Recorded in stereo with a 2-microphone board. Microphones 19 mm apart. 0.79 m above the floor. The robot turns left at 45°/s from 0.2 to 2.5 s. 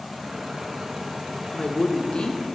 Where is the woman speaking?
115° left, 0.7 m; by 2.4 s 75° left, 0.7 m.